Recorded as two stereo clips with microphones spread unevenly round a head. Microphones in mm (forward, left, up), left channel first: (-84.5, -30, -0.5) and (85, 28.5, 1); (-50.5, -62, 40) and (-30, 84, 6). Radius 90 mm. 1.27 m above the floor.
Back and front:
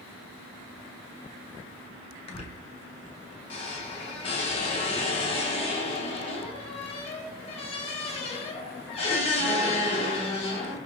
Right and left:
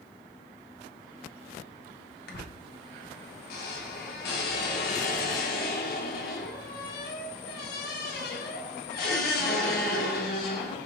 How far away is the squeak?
About 0.8 m.